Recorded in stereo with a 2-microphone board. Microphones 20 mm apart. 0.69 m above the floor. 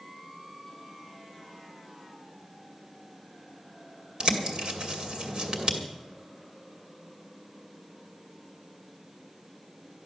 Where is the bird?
50° right (ahead or behind), 2 m.